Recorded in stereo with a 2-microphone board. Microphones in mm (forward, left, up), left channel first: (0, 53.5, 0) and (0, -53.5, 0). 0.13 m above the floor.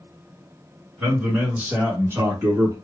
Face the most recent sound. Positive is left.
turn(degrees=-30)  # may be behind; listen again after turning